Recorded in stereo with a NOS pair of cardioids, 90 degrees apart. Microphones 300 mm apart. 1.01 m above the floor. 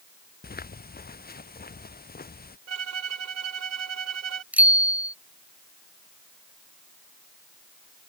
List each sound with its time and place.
0.4 s footsteps: 30° left
2.7 s a violin: 55° right
4.5 s a bicycle bell: 5° right